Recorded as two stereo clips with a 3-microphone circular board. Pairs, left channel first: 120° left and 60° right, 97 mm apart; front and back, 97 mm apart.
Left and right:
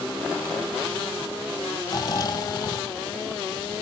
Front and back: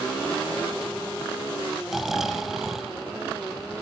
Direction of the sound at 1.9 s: 95° left.